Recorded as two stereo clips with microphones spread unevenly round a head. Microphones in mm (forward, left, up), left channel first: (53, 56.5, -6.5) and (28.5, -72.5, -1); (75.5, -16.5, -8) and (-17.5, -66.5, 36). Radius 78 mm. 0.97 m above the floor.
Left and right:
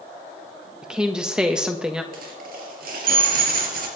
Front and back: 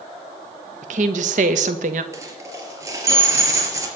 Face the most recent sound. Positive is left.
turn(degrees=-100)